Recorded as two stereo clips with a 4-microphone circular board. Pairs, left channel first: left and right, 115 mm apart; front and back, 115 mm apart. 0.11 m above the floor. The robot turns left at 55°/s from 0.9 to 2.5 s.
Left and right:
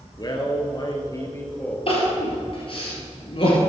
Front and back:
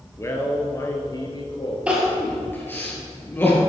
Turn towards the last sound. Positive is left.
turn(degrees=70)